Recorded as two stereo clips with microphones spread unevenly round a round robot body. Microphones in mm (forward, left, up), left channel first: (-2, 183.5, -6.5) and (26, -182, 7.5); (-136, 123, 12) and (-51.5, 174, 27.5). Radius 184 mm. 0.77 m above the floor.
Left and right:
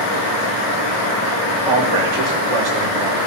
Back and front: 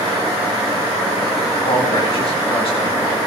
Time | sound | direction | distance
1.7 | a man speaking | 100° right | 2.5 m